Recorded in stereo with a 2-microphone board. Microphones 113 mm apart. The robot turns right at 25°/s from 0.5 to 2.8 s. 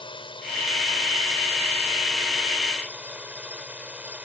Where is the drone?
135° left; by 4.2 s 170° right.